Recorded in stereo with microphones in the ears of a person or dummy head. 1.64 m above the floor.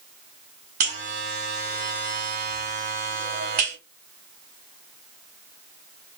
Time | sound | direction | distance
0.8 | a buzzer | 50° right (ahead or behind) | 2 m